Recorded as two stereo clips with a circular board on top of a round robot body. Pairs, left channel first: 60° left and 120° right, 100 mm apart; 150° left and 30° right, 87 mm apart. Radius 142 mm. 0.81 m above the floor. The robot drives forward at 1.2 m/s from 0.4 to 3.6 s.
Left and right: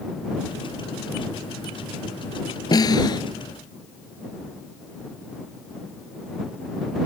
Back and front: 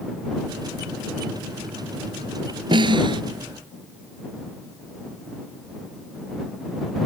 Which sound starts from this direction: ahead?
A snare drum, at 2.7 s.